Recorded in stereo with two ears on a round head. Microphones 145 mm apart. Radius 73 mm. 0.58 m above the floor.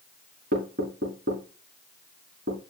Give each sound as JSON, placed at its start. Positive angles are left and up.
{"t": 0.5, "sound": "knocking", "side_deg": -60, "distance_m": 5.5}